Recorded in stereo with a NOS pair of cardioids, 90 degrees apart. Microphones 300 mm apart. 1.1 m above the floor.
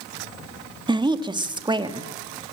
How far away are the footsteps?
I don't hear footsteps.